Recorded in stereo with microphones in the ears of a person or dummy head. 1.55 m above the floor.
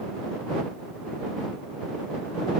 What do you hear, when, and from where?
Only background noise.